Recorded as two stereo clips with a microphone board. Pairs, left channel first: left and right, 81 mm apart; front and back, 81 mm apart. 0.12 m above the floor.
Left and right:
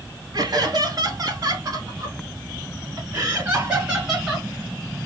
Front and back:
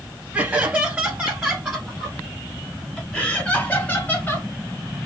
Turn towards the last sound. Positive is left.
turn(degrees=-5)